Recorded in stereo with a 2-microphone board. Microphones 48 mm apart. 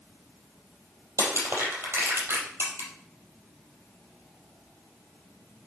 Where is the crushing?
50° right (ahead or behind), 4 m.